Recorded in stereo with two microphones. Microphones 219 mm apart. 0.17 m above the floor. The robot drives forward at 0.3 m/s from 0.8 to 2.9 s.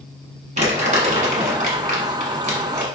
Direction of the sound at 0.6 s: 35° right (ahead or behind).